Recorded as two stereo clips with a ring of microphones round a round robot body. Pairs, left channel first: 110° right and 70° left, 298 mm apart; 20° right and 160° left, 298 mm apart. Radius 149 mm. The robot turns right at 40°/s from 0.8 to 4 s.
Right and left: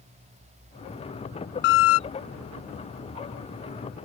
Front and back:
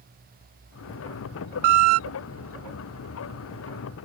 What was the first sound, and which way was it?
A squeak, 170° right.